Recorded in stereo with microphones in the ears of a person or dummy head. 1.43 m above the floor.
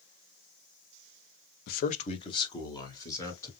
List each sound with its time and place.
1.7 s a man speaking: 55° left (ahead or behind), 0.7 m; by 3.5 s 15° left (ahead or behind), 3 m